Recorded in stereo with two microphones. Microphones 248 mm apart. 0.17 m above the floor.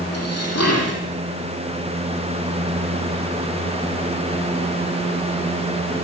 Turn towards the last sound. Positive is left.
turn(degrees=75)  # may be behind; listen again after turning